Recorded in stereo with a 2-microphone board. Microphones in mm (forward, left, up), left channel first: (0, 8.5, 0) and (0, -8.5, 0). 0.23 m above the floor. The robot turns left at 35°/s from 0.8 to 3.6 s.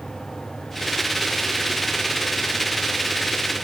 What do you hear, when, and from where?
Only background noise.